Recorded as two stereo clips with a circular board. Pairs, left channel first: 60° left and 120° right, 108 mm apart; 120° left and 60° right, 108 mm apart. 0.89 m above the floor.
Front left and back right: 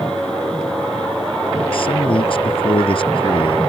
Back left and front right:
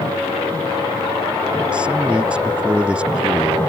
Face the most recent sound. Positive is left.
turn(degrees=20)